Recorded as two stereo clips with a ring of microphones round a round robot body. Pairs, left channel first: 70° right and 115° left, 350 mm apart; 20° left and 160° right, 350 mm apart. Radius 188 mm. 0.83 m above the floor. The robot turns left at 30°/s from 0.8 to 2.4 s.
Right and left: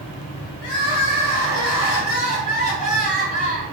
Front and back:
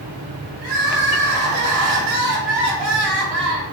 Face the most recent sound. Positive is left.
turn(degrees=-140)